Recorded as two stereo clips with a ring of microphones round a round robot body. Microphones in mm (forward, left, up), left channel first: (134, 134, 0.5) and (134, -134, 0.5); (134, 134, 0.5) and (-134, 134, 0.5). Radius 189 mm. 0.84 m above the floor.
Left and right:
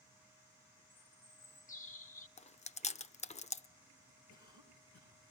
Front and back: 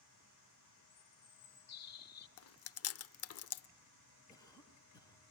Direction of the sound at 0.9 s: 25° left.